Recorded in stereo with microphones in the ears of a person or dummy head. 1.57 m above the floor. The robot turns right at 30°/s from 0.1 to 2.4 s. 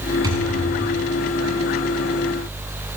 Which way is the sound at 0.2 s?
25° right (ahead or behind).